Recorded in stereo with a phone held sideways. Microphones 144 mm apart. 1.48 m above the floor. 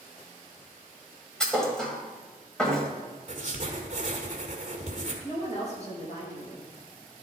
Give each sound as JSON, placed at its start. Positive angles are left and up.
{"t": 1.4, "sound": "a thud", "side_deg": 5, "distance_m": 1.5}
{"t": 3.3, "sound": "writing", "side_deg": -50, "distance_m": 1.6}
{"t": 5.2, "sound": "a woman speaking", "side_deg": 45, "distance_m": 3.0}